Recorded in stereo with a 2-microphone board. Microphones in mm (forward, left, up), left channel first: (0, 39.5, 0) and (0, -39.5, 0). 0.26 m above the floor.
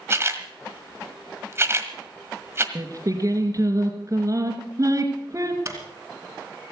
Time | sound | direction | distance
0.1 | a camera shutter | 30° right (ahead or behind) | 1.5 m
2.8 | singing | 40° right (ahead or behind) | 2.5 m
5.7 | a door slam | 35° right (ahead or behind) | 2.5 m